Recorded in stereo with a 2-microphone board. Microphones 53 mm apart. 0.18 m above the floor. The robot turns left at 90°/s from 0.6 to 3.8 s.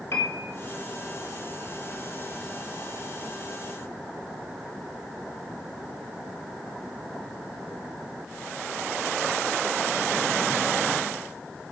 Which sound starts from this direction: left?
A piano, at 0.1 s.